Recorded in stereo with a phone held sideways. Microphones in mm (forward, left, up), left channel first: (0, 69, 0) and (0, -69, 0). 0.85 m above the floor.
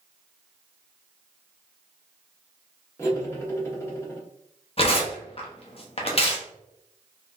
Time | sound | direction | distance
3.0 | cutlery clinking | 20° left (ahead or behind) | 1.0 m
4.8 | tearing paper | 45° left (ahead or behind) | 0.7 m